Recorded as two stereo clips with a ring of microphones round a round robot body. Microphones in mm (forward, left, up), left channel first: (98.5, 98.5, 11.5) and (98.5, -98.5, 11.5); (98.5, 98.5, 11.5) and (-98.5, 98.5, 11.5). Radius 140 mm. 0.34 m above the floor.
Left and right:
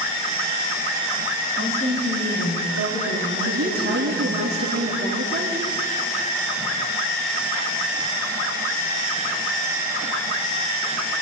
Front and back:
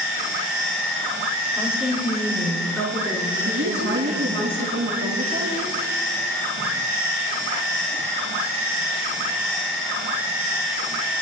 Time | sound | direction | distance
1.5 | a woman speaking | 95° left | 6 m
3.5 | a woman speaking | 145° right | 3.5 m